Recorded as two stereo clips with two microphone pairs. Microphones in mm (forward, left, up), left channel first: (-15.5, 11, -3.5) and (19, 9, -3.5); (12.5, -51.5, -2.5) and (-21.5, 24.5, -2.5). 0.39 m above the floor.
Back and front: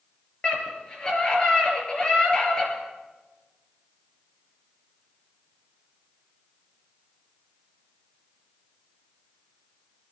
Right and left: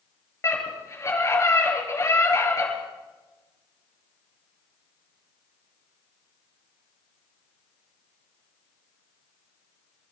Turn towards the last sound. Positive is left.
turn(degrees=-115)